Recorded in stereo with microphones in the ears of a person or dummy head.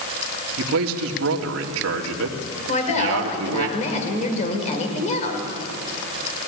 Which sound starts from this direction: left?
A woman speaking, at 2.7 s.